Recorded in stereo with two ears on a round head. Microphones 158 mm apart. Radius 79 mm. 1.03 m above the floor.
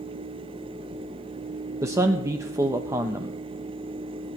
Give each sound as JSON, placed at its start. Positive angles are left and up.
{"t": 1.8, "sound": "a man speaking", "side_deg": -15, "distance_m": 0.7}